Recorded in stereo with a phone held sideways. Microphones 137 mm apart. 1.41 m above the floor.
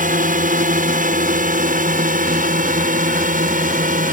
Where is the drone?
75° right (ahead or behind).